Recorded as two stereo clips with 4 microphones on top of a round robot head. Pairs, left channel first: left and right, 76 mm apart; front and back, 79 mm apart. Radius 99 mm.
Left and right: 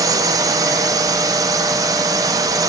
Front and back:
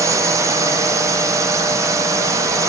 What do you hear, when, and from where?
0.0 s a drone: 130° right